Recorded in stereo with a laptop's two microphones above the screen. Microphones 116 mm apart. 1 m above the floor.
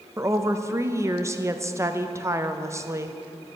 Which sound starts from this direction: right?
A woman speaking, at 0.2 s.